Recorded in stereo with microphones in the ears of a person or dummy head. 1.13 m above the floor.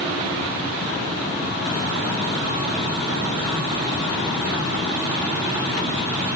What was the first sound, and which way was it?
Only background noise.